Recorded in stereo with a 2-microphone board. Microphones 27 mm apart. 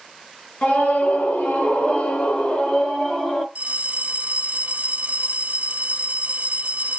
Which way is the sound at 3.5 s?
60° right (ahead or behind).